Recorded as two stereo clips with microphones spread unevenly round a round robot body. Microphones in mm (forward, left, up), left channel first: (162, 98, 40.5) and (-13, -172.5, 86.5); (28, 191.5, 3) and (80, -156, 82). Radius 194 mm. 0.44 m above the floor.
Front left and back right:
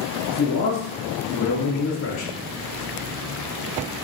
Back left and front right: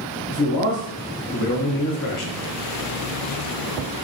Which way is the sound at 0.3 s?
80° left.